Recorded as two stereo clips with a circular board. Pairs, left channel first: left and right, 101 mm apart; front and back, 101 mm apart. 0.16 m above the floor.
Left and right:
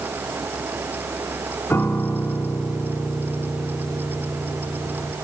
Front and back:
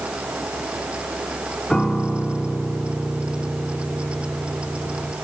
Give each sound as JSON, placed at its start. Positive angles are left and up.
{"t": 1.7, "sound": "a piano", "azimuth_deg": 75, "distance_m": 1.1}